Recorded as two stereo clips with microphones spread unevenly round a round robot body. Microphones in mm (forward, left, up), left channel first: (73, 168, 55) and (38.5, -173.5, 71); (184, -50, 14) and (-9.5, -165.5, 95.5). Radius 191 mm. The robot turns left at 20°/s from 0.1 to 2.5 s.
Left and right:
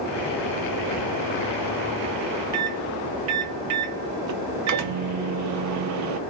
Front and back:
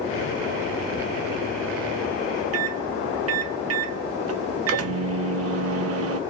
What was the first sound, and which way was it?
A microwave, 120° right.